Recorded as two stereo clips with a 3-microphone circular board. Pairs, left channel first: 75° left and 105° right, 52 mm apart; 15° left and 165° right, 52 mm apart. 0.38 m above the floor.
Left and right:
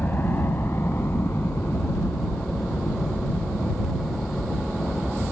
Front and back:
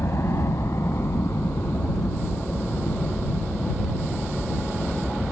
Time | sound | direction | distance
0.0 | a helicopter | 30° left | ?